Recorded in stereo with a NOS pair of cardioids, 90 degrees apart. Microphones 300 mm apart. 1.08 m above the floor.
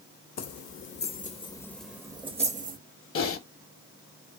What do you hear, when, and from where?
0.4 s keys jangling: 55° left, 0.9 m; by 2.8 s 30° right, 0.9 m
3.1 s typing on a keyboard: 45° left, 1.0 m